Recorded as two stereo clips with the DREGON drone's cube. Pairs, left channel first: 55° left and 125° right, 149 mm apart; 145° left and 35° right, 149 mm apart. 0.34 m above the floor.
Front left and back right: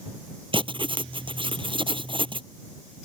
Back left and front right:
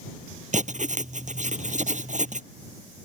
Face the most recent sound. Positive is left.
turn(degrees=-70)